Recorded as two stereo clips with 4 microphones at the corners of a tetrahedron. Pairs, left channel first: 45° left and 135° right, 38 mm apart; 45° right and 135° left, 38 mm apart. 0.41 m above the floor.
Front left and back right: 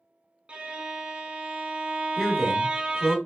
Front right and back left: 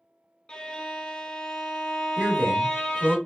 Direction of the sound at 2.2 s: 125° left.